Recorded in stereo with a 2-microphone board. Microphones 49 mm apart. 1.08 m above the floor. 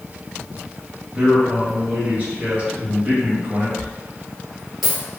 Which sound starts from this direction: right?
A man speaking, at 1.1 s.